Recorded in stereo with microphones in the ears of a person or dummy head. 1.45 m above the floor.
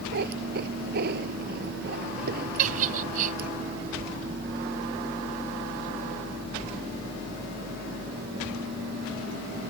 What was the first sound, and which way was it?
A cat meowing, 60° right (ahead or behind).